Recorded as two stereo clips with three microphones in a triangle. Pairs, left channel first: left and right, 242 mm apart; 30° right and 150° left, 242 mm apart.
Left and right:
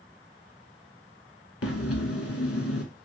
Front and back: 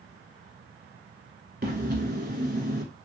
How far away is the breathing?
About 0.7 m.